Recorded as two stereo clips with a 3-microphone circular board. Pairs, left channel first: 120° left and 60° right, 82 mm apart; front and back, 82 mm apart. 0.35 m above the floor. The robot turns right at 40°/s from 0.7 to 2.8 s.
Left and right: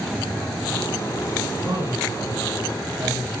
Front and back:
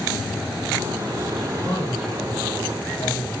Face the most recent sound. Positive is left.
turn(degrees=-15)